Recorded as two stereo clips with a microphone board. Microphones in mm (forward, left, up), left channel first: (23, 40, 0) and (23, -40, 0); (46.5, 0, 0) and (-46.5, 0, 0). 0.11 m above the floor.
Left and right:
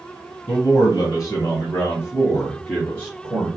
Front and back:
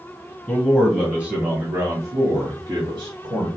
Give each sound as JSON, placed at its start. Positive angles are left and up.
{"t": 0.5, "sound": "a man speaking", "azimuth_deg": 95, "distance_m": 1.7}